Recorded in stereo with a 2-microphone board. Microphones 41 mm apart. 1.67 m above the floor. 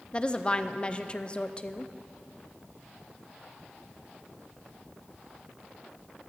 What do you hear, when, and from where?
0.1 s a woman speaking: 25° left (ahead or behind), 0.6 m